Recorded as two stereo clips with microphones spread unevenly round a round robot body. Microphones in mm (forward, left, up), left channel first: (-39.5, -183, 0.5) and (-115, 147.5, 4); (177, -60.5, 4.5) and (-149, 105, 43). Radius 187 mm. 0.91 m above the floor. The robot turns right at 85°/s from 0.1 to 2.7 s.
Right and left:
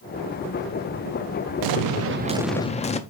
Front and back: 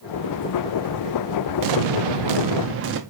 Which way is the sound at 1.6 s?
120° left.